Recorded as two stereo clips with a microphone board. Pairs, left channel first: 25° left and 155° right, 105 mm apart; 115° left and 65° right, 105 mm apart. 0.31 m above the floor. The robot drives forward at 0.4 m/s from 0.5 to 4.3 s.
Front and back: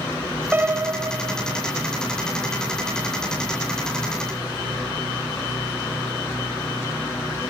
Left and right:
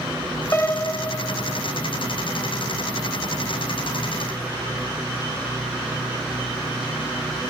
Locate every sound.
0.5 s a piano: 150° left, 0.6 m; by 1.6 s 170° left, 0.9 m